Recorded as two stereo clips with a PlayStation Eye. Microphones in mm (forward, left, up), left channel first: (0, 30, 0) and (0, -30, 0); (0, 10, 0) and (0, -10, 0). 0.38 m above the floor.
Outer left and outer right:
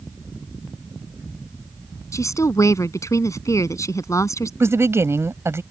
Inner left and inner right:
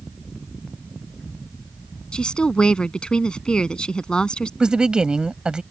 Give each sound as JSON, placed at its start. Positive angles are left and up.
{"t": 2.1, "sound": "a woman speaking", "side_deg": 65}
{"t": 4.6, "sound": "a woman speaking", "side_deg": -50}